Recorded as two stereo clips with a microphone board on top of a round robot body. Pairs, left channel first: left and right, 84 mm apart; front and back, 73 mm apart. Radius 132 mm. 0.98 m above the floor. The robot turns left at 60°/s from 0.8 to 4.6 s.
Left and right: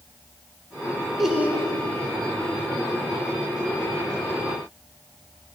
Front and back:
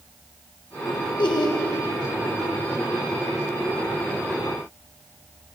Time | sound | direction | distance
1.2 | laughter | straight ahead | 2.0 m